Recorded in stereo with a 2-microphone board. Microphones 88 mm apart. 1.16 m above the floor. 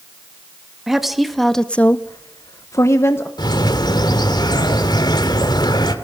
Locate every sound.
0.9 s a woman speaking: 5° right (ahead or behind), 1.8 m; by 3.3 s 25° left (ahead or behind), 1.5 m
3.4 s a bird: 55° left (ahead or behind), 2 m